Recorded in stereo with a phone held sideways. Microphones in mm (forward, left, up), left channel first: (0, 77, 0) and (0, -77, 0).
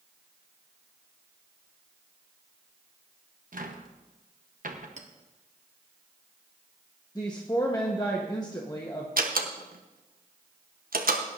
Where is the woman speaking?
25° left (ahead or behind), 1.1 m.